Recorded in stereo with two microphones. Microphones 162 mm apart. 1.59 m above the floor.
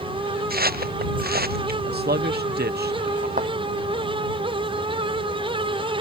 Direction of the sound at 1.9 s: 80° right.